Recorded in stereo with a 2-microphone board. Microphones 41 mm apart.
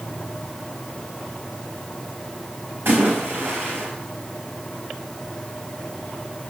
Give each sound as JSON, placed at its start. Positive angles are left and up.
{"t": 2.9, "sound": "a splash", "side_deg": -65, "distance_m": 5.0}